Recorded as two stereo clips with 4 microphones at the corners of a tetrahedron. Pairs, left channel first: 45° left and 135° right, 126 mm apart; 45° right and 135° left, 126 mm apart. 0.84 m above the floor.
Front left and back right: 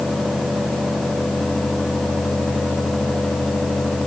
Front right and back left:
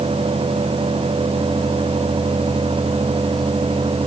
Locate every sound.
Only background noise.